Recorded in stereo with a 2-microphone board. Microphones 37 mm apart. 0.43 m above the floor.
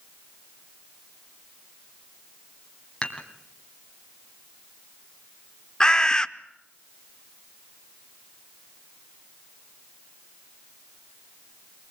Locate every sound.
3.0 s dishes clattering: 20° left (ahead or behind), 2.5 m
5.8 s a bird: 20° left (ahead or behind), 0.7 m